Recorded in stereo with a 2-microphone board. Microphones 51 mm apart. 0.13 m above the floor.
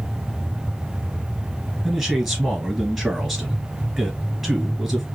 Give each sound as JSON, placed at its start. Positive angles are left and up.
{"t": 1.8, "sound": "a man speaking", "side_deg": 0, "distance_m": 1.9}